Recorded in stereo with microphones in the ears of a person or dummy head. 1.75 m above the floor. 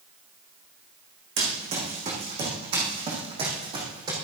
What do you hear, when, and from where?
1.4 s running footsteps: 40° right (ahead or behind), 5 m; by 4.1 s 25° right (ahead or behind), 3.5 m